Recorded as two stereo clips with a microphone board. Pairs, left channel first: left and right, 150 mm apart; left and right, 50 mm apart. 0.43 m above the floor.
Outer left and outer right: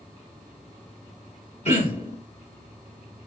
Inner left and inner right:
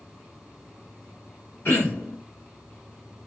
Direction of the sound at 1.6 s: 50° left (ahead or behind).